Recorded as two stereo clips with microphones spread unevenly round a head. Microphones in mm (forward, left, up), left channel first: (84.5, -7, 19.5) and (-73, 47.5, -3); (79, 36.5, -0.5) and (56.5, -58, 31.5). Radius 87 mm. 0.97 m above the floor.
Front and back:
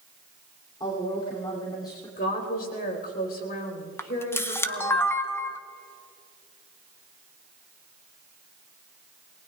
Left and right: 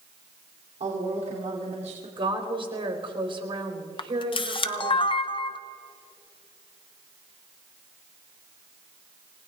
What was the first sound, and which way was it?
A woman speaking, 90° right.